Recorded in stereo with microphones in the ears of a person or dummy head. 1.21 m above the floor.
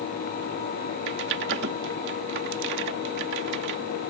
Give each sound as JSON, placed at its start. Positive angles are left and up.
{"t": 1.1, "sound": "typing on a keyboard", "side_deg": -60}